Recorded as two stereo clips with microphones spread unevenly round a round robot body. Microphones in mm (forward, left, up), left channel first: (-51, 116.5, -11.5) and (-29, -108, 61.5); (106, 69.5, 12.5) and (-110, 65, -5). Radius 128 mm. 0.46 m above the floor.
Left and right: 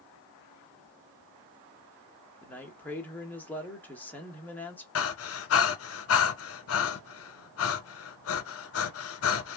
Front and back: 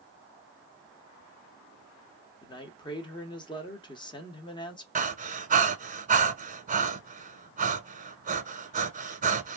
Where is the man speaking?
60° left, 1.0 m.